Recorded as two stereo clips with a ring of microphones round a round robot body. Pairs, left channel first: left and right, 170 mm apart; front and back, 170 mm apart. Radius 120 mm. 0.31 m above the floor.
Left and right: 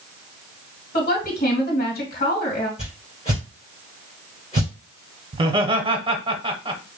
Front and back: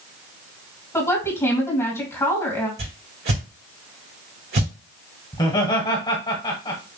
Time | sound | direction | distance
0.9 | a woman speaking | 70° left | 2.5 m
2.8 | a whoosh | 155° left | 3.5 m
5.3 | laughter | 55° right | 1.2 m